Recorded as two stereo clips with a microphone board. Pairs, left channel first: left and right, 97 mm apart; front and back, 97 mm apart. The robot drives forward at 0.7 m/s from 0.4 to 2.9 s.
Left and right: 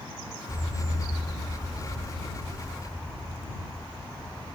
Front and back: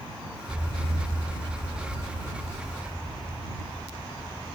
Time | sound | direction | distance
0.5 | an explosion | 125° left | 1.9 m